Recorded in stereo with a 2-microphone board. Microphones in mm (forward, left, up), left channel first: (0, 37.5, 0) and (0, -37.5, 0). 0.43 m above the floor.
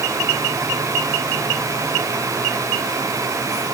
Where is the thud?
No thud in this recording.